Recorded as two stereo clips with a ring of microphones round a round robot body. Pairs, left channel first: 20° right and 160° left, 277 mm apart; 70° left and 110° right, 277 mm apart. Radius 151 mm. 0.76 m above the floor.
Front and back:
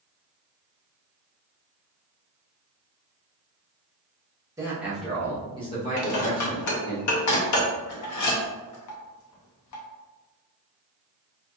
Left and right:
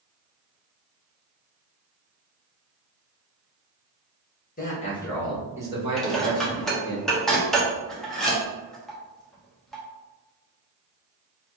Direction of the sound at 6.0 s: 20° right.